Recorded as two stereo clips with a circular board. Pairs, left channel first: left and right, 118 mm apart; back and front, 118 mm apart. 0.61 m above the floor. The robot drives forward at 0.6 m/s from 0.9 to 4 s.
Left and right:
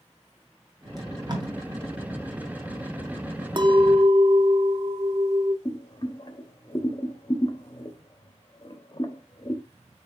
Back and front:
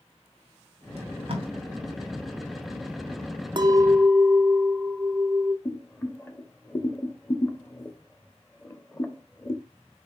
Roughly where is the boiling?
Behind left.